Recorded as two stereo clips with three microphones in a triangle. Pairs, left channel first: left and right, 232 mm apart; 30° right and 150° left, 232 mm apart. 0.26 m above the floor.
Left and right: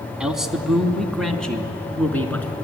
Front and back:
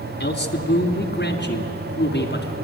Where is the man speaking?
5° right, 2 m; by 2.5 s 10° left, 3 m.